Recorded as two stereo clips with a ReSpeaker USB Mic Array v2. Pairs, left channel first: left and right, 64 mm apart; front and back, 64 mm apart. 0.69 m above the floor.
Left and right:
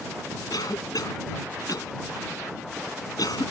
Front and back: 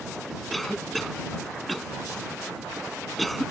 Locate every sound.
0.5 s a cough: 90° left